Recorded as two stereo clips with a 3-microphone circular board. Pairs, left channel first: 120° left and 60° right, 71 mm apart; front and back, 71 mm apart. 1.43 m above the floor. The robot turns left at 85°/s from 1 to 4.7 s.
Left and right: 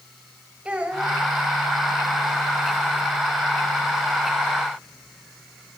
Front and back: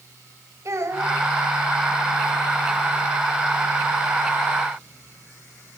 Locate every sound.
0.7 s a child speaking: 130° right, 4 m; by 1.2 s 150° right, 4 m